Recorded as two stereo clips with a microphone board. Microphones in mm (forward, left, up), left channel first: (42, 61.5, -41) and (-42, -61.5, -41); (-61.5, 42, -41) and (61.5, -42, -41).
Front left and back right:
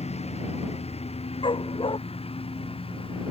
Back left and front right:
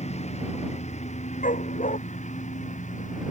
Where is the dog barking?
110° left.